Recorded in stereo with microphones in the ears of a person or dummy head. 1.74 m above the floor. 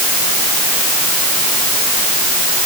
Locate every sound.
Only background noise.